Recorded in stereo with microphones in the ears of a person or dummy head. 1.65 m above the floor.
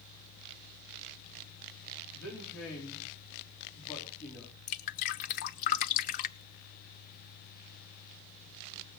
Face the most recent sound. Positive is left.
turn(degrees=45)  # may be behind; listen again after turning